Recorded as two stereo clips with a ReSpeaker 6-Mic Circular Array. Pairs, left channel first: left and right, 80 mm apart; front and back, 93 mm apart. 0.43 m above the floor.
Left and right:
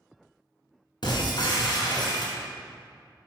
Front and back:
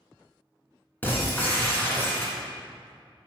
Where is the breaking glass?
70° left, 1.9 m.